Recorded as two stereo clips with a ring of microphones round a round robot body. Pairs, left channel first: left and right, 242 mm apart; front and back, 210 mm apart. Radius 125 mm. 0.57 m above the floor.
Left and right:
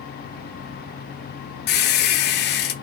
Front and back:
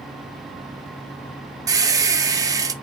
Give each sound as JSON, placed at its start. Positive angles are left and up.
{"t": 1.7, "sound": "a squeak", "azimuth_deg": 110, "distance_m": 0.6}